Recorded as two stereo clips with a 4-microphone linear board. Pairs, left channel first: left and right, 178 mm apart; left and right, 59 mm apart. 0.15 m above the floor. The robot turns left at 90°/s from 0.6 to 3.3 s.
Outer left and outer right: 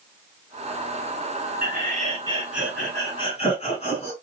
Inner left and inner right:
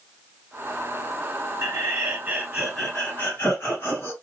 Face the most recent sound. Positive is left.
turn(degrees=125)